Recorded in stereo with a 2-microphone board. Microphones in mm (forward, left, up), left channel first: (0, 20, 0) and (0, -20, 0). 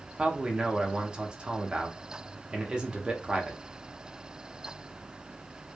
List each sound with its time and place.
0.2 s a man speaking: 25° right (ahead or behind), 0.6 m